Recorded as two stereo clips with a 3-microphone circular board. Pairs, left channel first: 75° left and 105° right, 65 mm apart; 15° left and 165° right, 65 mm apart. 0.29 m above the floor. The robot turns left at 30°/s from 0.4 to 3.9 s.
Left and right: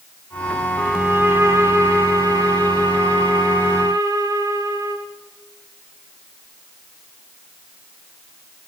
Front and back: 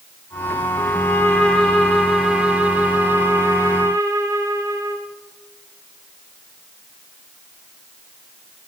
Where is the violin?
25° right, 8 m; by 5.1 s 120° right, 8 m.